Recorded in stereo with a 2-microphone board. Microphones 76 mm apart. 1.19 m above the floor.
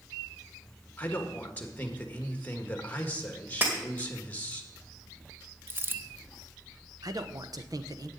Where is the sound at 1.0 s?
20° left (ahead or behind), 1.6 m.